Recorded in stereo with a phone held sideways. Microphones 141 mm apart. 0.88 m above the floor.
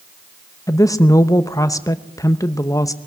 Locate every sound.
0.7 s a woman speaking: 25° left (ahead or behind), 0.8 m